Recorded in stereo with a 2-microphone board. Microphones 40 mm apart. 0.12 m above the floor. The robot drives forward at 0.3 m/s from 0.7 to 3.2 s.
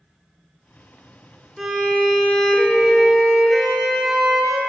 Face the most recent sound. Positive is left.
turn(degrees=0)  # may be behind; listen again after turning